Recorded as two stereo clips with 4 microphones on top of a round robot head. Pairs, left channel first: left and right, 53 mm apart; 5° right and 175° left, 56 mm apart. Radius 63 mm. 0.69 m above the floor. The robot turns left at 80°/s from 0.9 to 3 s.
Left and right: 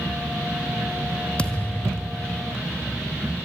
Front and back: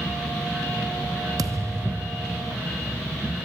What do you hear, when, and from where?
1.4 s a thud: 160° left, 1.7 m; by 2.7 s 60° left, 1.7 m